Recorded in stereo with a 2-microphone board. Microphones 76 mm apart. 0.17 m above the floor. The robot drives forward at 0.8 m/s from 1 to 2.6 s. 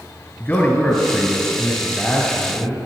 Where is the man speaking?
25° left (ahead or behind), 1.9 m; by 2.8 s 15° left (ahead or behind), 3 m.